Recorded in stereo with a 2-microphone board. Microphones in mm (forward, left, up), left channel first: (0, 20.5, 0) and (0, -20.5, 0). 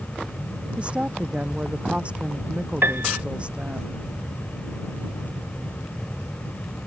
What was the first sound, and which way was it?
A woman speaking, 30° right (ahead or behind).